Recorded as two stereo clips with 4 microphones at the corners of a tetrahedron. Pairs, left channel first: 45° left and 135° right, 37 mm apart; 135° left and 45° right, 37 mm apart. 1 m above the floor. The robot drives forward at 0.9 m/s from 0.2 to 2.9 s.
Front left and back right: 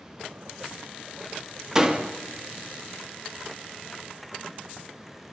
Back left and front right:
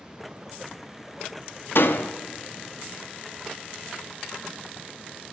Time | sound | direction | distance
1.8 | a door slam | 150° left | 1.5 m